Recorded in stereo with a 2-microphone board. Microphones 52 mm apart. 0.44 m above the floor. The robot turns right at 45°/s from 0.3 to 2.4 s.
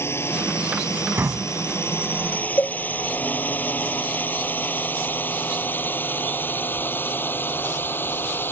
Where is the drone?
55° left (ahead or behind); by 8.5 s 45° left (ahead or behind).